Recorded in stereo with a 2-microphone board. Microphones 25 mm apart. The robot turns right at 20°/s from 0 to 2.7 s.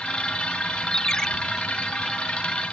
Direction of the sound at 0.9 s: 30° left (ahead or behind).